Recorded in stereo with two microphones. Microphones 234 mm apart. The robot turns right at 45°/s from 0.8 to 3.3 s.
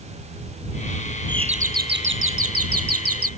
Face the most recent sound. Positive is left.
turn(degrees=-70)